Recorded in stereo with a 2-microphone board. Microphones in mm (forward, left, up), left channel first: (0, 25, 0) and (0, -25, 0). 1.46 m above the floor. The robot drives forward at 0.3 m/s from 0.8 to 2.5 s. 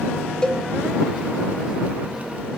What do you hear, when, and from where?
0.4 s a cowbell: 15° left (ahead or behind), 0.5 m